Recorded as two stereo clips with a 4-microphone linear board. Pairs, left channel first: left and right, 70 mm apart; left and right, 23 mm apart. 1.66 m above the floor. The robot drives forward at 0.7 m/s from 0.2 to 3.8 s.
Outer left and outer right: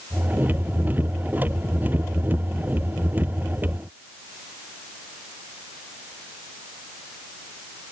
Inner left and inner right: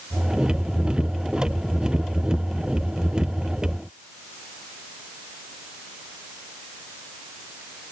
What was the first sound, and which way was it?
Only background noise.